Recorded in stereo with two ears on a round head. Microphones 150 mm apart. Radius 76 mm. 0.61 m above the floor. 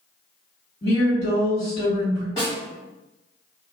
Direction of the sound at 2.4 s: 25° left (ahead or behind).